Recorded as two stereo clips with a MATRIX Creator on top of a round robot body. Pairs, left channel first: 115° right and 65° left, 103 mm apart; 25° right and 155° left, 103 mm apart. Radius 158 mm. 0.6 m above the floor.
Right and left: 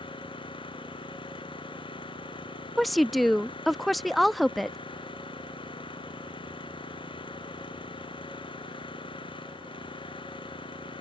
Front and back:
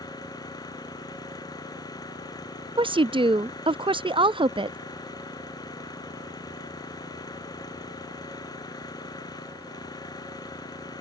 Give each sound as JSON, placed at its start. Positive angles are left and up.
{"t": 0.0, "sound": "an engine running", "azimuth_deg": -75}
{"t": 2.8, "sound": "a woman speaking", "azimuth_deg": 160}